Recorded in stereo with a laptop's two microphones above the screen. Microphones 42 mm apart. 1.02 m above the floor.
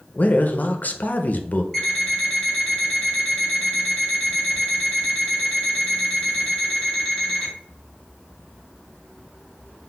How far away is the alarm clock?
About 1.4 m.